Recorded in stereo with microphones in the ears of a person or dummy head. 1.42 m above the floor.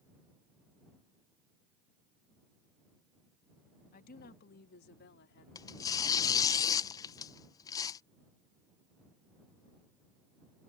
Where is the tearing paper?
20° left (ahead or behind).